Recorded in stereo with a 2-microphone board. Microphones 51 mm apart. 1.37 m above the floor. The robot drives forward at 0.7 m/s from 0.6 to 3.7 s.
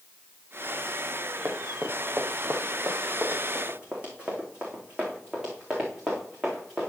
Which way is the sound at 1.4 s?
45° right (ahead or behind).